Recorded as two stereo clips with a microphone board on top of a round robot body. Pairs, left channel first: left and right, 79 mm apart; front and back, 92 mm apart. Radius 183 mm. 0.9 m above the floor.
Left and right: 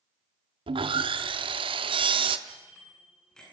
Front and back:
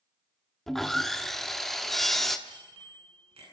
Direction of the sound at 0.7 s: 85° right.